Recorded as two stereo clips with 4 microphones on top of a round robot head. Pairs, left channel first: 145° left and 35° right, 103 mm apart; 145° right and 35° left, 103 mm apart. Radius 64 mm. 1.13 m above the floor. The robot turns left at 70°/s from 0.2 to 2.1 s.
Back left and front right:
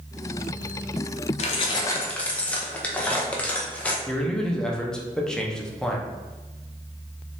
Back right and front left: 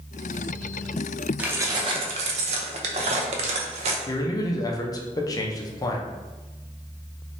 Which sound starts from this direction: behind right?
A man speaking, at 4.1 s.